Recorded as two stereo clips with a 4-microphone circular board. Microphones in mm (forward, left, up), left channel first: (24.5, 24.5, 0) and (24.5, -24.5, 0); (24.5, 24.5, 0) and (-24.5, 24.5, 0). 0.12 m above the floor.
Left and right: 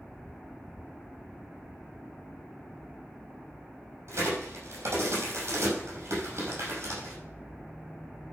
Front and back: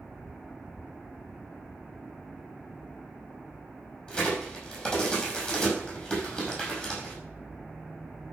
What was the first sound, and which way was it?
A crack, 65° right.